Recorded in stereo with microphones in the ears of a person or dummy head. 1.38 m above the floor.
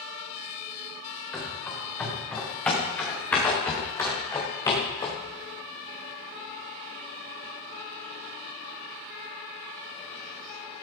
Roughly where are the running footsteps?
Centre.